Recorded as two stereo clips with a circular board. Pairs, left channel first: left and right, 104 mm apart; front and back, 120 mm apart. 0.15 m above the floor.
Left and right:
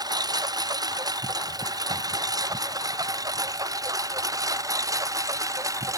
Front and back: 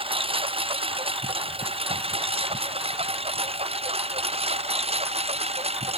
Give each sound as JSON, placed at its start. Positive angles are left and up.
{"t": 0.0, "sound": "a lawn mower", "azimuth_deg": -140}